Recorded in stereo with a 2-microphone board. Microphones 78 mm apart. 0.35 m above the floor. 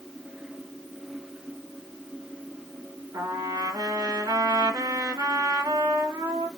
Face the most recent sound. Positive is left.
turn(degrees=-65)  # may be behind; listen again after turning